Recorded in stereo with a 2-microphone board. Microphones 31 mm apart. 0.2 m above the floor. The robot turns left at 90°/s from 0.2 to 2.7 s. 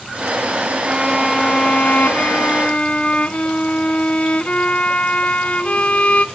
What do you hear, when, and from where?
0.8 s a violin: 140° right, 0.6 m; by 6.2 s 50° left, 0.6 m